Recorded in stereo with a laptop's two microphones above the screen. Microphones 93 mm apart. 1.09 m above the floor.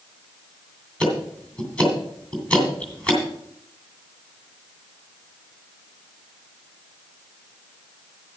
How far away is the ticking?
About 2.5 m.